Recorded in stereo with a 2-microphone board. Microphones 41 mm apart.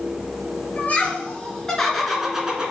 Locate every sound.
0.8 s laughter: 30° left (ahead or behind), 3 m; by 2.7 s 25° right (ahead or behind), 2 m